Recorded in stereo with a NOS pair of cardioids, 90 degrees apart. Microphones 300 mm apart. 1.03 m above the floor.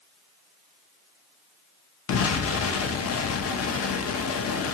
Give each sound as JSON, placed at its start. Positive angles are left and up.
{"t": 2.1, "sound": "an explosion", "azimuth_deg": 50, "distance_m": 0.7}